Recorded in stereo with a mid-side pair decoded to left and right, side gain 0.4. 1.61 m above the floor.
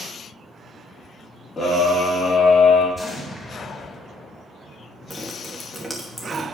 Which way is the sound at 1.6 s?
30° left.